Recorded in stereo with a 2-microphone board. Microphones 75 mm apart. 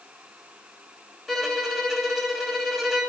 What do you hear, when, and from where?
1.3 s a violin: centre (ahead or behind), 1.9 m